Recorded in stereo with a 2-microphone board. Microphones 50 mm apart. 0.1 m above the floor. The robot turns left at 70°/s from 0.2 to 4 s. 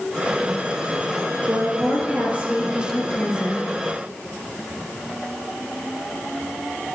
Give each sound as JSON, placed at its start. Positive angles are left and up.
{"t": 1.5, "sound": "a woman speaking", "azimuth_deg": -85, "distance_m": 2.0}